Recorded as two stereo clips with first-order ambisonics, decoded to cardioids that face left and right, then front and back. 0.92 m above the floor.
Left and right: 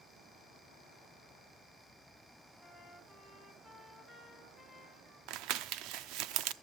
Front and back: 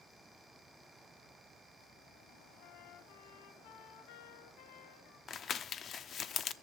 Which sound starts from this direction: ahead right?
Crumpling, at 5.3 s.